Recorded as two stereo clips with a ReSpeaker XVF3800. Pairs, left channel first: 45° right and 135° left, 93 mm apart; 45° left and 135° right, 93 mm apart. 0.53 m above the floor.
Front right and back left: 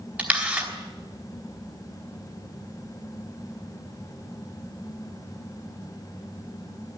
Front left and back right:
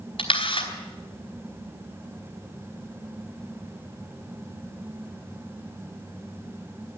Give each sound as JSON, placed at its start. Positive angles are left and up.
{"t": 0.2, "sound": "a camera shutter", "azimuth_deg": 60, "distance_m": 4.0}